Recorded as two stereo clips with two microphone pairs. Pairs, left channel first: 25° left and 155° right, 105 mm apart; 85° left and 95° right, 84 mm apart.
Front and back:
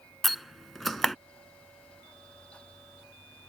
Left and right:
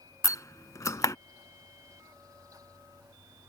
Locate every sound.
0.2 s a door slam: 115° left